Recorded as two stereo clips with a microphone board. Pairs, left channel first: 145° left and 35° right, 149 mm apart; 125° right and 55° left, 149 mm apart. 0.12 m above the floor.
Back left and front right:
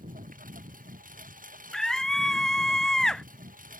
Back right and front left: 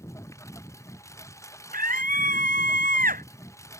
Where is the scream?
60° left.